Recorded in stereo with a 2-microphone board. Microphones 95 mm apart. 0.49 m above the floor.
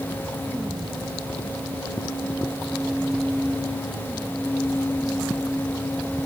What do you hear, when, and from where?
Only background noise.